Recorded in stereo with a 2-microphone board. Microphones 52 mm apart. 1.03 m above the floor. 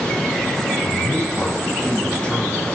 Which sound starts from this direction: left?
A man speaking, at 0.8 s.